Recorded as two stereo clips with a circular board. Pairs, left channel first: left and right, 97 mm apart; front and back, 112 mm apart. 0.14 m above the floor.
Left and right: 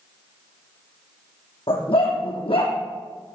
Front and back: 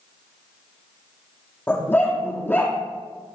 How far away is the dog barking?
About 3 m.